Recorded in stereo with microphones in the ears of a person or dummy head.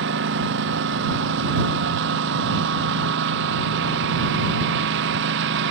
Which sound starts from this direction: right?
A lawn mower, at 0.0 s.